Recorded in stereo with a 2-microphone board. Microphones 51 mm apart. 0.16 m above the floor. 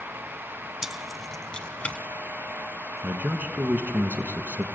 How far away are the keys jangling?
About 0.7 m.